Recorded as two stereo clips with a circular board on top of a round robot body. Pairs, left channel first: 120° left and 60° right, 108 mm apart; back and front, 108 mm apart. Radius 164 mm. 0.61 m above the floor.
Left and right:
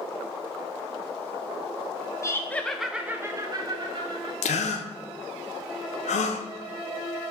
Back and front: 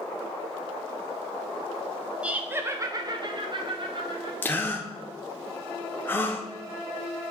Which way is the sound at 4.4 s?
105° left.